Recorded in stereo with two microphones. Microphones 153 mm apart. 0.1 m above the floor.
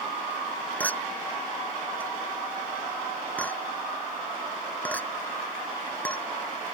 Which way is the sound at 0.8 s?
10° left (ahead or behind).